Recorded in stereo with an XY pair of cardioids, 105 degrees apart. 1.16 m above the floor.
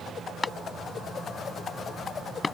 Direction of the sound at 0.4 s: 25° left.